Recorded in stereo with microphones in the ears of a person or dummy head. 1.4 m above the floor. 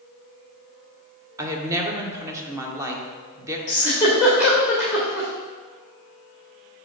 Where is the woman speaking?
15° right (ahead or behind), 1.0 m.